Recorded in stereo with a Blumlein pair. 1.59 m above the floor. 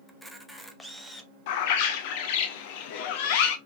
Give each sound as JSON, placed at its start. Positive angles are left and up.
{"t": 0.1, "sound": "a camera shutter", "azimuth_deg": 0, "distance_m": 0.5}
{"t": 1.5, "sound": "a bird", "azimuth_deg": 50, "distance_m": 0.5}